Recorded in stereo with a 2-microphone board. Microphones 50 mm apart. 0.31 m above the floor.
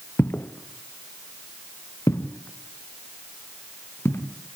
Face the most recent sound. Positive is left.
turn(degrees=55)  # may be behind; listen again after turning